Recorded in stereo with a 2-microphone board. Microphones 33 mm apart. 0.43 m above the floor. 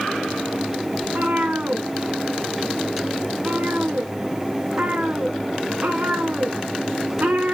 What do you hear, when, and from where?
1.0 s a cat meowing: 60° right (ahead or behind), 3 m